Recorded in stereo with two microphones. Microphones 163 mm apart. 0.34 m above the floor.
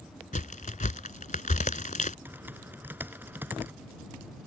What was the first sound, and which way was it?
A crack, 55° left (ahead or behind).